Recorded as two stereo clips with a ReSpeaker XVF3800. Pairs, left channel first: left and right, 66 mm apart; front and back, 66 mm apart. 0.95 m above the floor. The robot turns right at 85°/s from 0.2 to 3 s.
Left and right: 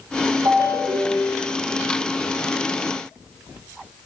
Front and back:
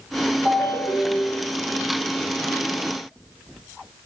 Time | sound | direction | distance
0.5 | a ringtone | 115° right | 1.3 m